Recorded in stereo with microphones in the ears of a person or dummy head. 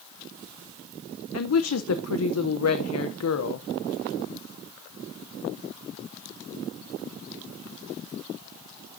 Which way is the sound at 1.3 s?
80° left.